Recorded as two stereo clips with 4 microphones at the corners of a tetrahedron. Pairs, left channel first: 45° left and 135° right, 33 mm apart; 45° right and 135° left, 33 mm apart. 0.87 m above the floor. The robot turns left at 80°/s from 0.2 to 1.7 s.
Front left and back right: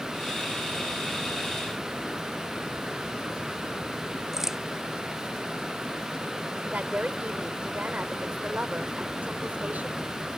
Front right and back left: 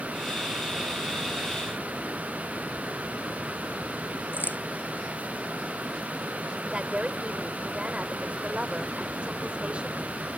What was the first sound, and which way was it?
A crack, 55° right.